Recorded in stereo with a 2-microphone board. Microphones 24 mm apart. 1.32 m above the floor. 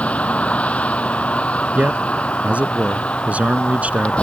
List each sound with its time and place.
0.0 s a vehicle: 70° left (ahead or behind); by 4.2 s 60° left (ahead or behind)
1.8 s a man speaking: 75° right (ahead or behind)